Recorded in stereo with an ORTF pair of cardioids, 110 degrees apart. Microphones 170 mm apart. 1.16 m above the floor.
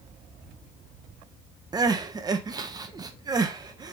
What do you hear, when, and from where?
1.7 s crying: 20° right, 0.5 m